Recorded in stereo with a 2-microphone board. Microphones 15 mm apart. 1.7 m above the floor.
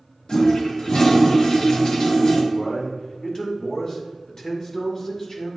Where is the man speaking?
40° left (ahead or behind), 1.9 m.